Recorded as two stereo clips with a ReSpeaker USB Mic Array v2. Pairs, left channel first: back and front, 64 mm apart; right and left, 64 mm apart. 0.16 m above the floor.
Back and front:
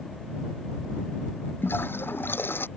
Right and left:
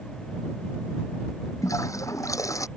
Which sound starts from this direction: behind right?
A toilet flushing, at 1.6 s.